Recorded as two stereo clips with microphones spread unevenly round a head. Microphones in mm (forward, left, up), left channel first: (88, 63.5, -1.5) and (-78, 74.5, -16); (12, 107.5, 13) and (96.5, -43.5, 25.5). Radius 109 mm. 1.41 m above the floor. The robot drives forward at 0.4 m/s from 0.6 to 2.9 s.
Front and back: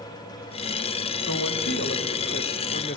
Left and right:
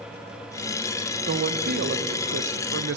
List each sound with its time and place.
1.3 s a woman speaking: 35° right, 1.3 m; by 3.0 s 60° right, 0.8 m